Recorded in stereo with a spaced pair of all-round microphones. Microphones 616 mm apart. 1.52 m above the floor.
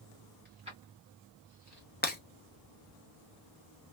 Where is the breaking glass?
15° left (ahead or behind), 0.7 m.